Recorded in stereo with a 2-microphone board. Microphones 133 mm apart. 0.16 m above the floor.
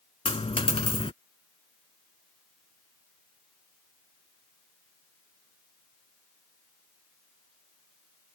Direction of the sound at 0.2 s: 50° left (ahead or behind).